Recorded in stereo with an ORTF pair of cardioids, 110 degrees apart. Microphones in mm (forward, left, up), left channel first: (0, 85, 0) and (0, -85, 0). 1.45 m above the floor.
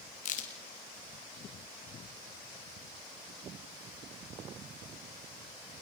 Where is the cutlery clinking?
I don't hear cutlery clinking.